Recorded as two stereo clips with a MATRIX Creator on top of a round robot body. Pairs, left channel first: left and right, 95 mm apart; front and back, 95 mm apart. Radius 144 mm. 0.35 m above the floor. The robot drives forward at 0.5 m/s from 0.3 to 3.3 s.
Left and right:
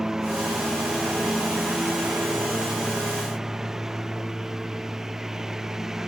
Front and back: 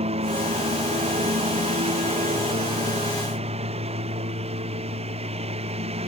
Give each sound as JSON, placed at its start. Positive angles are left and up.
{"t": 0.0, "sound": "a lawn mower", "azimuth_deg": -175}